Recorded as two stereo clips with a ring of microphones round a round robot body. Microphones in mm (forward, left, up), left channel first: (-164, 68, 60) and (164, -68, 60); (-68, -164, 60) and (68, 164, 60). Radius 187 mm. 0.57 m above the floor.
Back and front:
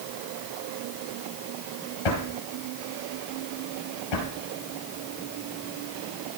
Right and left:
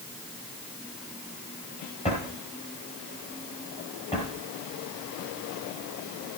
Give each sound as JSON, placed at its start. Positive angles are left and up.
{"t": 2.0, "sound": "a drawer", "azimuth_deg": 175, "distance_m": 4.0}